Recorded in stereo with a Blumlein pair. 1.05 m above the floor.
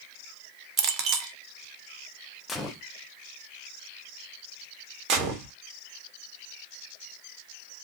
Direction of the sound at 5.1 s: 30° right.